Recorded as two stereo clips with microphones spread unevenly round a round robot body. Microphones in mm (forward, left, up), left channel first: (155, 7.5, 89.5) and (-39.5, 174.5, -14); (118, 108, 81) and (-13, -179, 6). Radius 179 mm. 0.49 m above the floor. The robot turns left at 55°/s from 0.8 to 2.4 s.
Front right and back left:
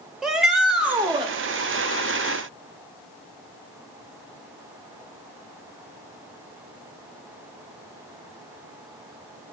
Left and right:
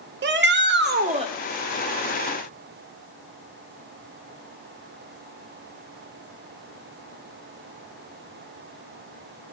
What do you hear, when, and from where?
0.2 s a shout: 150° right, 1.5 m; by 1.3 s straight behind, 1.5 m